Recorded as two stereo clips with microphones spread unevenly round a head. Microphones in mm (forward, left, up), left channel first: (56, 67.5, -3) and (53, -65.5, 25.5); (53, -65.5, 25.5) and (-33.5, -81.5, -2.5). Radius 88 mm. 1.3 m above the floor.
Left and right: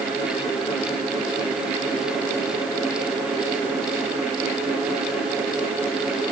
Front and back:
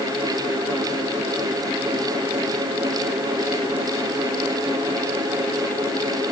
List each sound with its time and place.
Only background noise.